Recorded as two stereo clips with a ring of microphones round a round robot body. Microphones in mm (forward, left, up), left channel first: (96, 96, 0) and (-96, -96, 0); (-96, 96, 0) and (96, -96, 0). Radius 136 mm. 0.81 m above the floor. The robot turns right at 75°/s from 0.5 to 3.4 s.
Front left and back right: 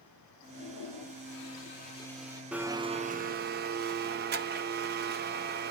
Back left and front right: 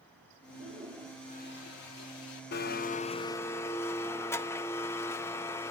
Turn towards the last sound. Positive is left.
turn(degrees=-150)